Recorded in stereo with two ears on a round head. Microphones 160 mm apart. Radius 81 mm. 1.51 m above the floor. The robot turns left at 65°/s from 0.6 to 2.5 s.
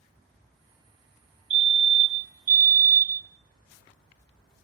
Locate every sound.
1.5 s a fire alarm: 75° right, 1.1 m; by 3.3 s 140° right, 1.1 m